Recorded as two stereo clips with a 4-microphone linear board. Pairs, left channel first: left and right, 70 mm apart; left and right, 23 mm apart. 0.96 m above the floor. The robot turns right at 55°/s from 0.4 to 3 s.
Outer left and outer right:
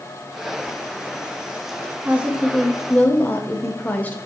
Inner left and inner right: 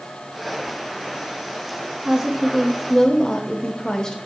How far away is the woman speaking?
About 1.5 m.